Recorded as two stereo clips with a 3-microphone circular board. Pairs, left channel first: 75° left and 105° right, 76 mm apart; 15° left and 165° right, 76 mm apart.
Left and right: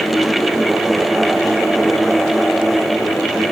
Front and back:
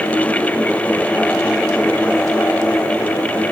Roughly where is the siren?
No siren in this recording.